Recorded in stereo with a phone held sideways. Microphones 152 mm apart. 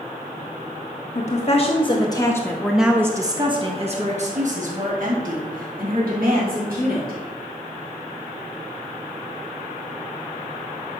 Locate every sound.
1.1 s a woman speaking: 50° left (ahead or behind), 1.3 m; by 7.2 s 75° right (ahead or behind), 3 m